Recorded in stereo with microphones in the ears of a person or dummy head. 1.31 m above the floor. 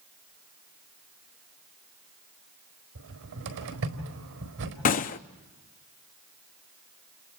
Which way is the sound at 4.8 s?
40° left (ahead or behind).